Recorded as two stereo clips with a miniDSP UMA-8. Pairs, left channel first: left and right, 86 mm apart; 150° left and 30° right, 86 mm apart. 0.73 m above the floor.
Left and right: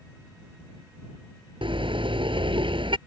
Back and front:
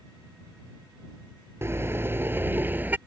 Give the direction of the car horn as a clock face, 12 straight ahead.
3 o'clock.